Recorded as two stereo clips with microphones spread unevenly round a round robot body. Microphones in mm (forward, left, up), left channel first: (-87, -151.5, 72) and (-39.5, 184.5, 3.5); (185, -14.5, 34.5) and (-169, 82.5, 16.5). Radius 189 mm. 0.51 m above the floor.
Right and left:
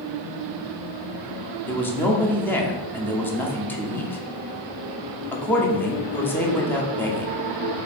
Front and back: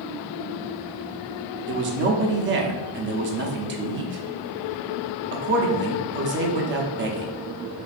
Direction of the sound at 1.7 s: 165° left.